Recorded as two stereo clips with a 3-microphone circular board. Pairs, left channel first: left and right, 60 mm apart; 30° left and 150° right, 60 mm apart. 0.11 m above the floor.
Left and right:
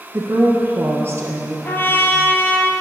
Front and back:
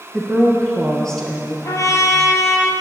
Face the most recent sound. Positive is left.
turn(degrees=40)